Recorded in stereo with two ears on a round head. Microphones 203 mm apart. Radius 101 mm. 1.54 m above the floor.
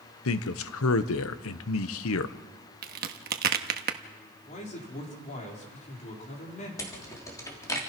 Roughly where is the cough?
No cough in this recording.